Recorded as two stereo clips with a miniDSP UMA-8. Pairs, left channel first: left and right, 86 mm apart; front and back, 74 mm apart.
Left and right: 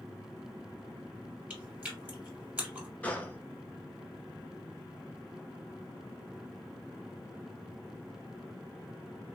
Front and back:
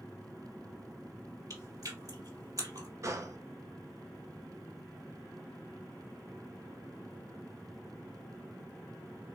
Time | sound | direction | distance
1.5 | chewing | 160° right | 2.5 m
3.0 | a gunshot | 160° left | 0.8 m